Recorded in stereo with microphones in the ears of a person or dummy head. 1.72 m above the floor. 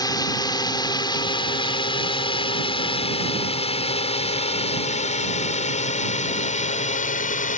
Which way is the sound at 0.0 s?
20° left (ahead or behind).